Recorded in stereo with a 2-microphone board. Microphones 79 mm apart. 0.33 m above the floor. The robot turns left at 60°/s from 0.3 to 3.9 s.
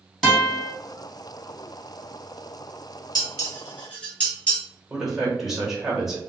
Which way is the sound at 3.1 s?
50° left (ahead or behind).